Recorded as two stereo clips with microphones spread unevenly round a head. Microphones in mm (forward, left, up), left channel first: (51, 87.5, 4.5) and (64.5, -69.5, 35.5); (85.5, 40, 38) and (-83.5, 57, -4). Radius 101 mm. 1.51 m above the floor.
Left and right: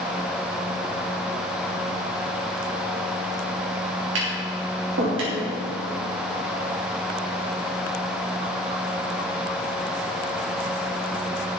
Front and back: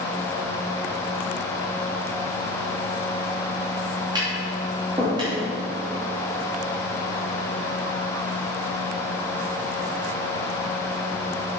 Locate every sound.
4.2 s tapping: 115° right, 3 m